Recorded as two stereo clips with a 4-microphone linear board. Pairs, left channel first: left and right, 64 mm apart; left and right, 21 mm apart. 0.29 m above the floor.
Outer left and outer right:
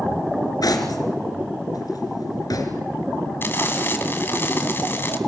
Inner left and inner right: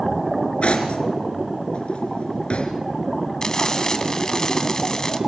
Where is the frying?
35° left (ahead or behind), 2 m.